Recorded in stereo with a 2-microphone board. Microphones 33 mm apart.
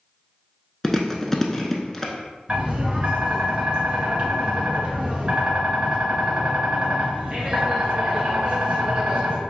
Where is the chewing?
10° left (ahead or behind), 0.6 m.